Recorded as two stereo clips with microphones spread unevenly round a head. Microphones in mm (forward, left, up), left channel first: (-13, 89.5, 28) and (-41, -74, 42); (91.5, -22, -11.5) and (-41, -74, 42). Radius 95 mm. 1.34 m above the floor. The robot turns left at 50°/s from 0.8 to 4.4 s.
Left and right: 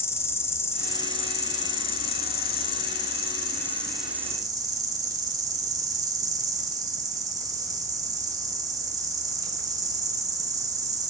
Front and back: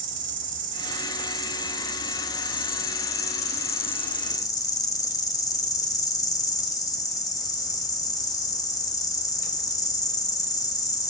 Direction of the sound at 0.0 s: 150° left.